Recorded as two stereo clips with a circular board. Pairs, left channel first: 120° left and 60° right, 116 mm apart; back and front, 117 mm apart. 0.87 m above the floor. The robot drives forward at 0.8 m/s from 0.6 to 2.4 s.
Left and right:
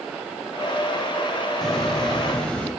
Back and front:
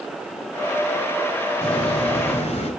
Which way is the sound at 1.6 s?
155° right.